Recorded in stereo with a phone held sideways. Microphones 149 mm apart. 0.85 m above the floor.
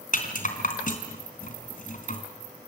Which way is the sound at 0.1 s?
60° left (ahead or behind).